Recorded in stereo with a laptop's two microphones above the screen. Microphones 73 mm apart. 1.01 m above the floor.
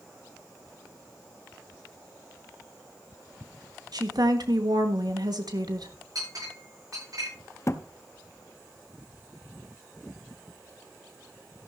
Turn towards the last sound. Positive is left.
turn(degrees=40)  # may be behind; listen again after turning